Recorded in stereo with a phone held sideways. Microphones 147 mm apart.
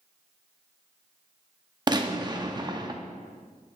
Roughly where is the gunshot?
Right.